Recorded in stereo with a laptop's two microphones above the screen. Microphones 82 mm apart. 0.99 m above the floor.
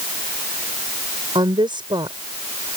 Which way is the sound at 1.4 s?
80° right.